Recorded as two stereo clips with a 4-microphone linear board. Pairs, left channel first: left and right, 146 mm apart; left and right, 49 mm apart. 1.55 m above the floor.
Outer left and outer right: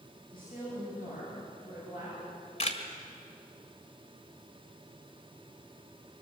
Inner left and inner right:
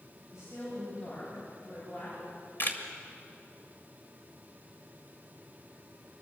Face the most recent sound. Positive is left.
turn(degrees=45)  # may be behind; listen again after turning